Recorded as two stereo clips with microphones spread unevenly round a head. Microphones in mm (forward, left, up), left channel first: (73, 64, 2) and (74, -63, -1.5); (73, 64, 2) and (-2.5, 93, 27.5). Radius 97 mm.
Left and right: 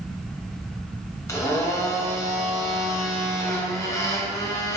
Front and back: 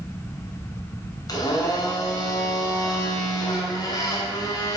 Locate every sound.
1.3 s a blender: 25° left, 2.5 m